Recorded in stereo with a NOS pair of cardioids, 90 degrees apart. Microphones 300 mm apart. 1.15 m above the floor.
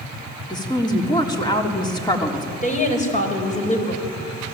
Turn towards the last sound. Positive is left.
turn(degrees=25)